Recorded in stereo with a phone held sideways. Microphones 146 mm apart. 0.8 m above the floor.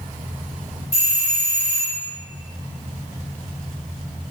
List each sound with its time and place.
0.9 s a doorbell: 25° right (ahead or behind), 1.0 m